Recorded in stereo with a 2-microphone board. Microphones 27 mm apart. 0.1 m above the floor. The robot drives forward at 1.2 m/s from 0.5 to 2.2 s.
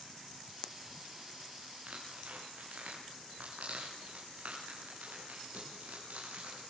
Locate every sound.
1.9 s tearing paper: 80° right, 10 m